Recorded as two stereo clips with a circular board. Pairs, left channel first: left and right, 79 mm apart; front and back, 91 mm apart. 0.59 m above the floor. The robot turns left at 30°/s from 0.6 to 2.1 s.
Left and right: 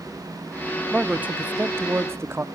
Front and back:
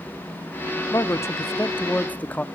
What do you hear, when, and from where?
0.9 s a man speaking: 25° right, 0.7 m; by 2.4 s 60° right, 0.7 m